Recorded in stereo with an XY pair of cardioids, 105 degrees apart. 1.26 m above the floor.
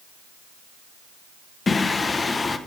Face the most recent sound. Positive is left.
turn(degrees=30)